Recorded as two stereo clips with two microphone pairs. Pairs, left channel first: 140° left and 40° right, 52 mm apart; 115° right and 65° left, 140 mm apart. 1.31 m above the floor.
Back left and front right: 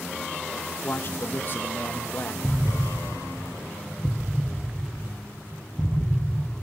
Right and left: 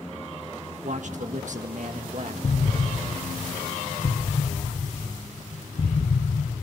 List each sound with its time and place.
0.8 s a man speaking: 95° left, 1.4 m
2.4 s an explosion: 100° right, 0.6 m